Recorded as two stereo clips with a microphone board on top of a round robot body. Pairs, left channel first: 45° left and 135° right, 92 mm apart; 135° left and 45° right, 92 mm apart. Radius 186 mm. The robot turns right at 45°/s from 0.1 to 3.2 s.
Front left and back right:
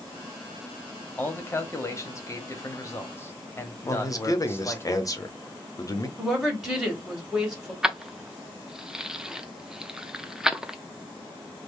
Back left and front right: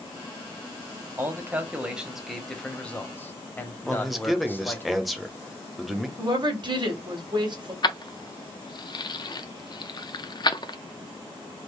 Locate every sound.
1.2 s a man speaking: 10° right, 1.1 m; by 4.9 s 85° left, 1.1 m
3.9 s a man speaking: 45° left, 1.0 m
6.2 s a woman speaking: 50° right, 1.9 m
7.8 s keys jangling: 145° left, 0.7 m